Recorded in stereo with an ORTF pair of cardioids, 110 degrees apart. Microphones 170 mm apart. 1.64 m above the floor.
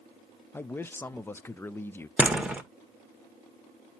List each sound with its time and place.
0.5 s a man speaking: 15° left, 0.5 m
2.2 s a door slam: 10° right, 1.2 m